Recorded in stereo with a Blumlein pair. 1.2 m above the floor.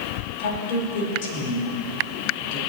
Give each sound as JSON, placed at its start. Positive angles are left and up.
{"t": 0.4, "sound": "a woman speaking", "azimuth_deg": 50, "distance_m": 4.5}